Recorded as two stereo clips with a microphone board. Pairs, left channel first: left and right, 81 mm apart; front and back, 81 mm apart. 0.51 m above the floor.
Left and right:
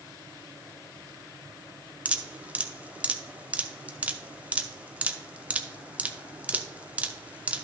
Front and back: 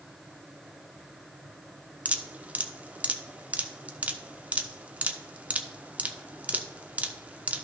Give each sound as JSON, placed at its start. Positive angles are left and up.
{"t": 2.0, "sound": "dripping", "azimuth_deg": -135, "distance_m": 0.7}